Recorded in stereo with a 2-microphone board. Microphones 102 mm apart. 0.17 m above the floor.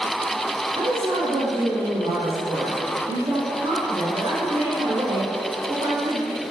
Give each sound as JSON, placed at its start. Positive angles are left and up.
{"t": 0.8, "sound": "a woman speaking", "side_deg": -60, "distance_m": 4.0}